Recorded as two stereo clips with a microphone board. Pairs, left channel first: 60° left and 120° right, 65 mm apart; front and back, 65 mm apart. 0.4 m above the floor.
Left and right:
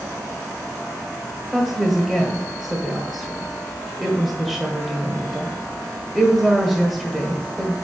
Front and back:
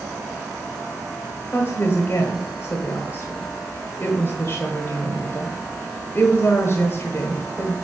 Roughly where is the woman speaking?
Ahead right.